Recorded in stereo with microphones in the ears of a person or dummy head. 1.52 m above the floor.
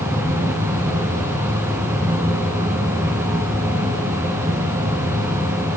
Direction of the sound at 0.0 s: 15° right (ahead or behind).